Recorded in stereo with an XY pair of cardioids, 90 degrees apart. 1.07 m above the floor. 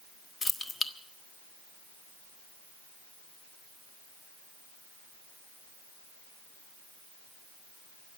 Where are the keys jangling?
35° left, 1.5 m.